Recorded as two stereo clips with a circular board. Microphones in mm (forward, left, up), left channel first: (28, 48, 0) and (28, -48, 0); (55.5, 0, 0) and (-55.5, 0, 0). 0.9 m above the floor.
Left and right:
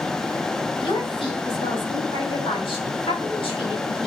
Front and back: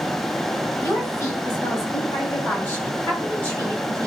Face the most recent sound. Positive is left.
turn(degrees=75)